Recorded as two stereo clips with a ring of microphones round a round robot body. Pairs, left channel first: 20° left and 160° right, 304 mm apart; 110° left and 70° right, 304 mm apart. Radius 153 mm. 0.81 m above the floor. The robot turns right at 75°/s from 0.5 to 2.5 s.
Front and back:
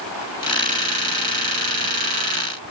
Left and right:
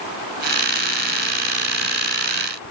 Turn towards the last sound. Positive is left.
No sound to turn to.